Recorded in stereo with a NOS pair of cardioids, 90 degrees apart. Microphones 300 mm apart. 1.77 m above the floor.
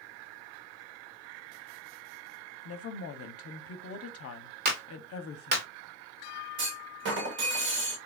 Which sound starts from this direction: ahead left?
A woman speaking, at 2.6 s.